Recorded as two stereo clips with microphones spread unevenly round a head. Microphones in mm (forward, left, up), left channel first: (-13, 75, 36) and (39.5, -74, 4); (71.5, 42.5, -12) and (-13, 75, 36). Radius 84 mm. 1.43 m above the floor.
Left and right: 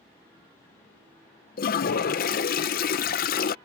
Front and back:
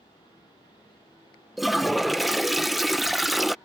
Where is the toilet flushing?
75° left.